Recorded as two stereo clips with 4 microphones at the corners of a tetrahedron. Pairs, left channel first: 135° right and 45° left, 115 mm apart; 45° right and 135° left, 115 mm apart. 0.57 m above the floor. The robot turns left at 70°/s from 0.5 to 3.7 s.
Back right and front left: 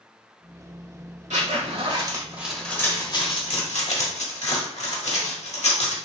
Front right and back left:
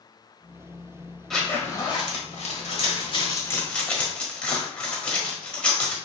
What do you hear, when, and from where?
1.3 s a zipper: 45° left, 1.2 m; by 6.0 s 125° right, 1.2 m